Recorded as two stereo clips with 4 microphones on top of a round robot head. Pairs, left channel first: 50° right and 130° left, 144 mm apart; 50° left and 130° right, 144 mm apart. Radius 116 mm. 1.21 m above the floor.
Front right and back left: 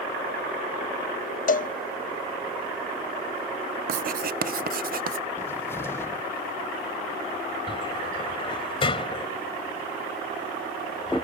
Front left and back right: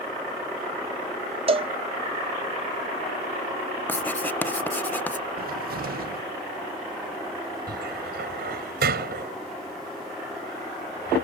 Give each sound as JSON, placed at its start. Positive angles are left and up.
{"t": 1.5, "sound": "a cowbell", "azimuth_deg": -75}
{"t": 3.9, "sound": "writing", "azimuth_deg": 130}
{"t": 5.4, "sound": "a cupboard door", "azimuth_deg": -125}
{"t": 7.7, "sound": "a cupboard door", "azimuth_deg": -110}